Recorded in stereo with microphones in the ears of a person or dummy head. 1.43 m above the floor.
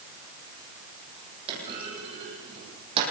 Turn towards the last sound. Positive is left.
turn(degrees=-30)  # may be behind; listen again after turning